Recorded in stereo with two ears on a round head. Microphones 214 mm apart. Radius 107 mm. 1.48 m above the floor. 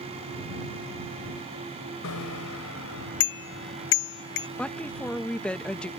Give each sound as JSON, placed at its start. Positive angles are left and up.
{"t": 2.0, "sound": "a bicycle bell", "side_deg": 65}
{"t": 4.6, "sound": "a woman speaking", "side_deg": 5}